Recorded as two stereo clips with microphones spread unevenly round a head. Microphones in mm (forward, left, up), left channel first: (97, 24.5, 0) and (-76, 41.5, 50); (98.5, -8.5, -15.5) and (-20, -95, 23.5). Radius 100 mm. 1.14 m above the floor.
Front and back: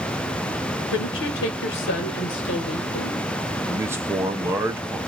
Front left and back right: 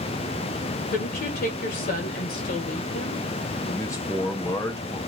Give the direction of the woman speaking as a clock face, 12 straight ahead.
12 o'clock.